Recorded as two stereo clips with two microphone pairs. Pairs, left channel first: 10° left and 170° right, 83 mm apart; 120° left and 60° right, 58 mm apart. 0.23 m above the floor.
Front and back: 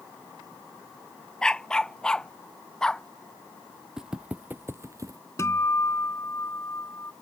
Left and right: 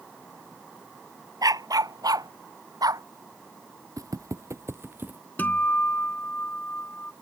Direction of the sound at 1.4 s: 70° right.